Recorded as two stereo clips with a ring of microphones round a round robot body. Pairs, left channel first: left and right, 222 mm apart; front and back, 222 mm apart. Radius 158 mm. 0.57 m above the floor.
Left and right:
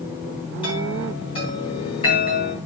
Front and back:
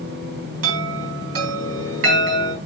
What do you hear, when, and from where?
0.6 s a chime: 165° left, 4 m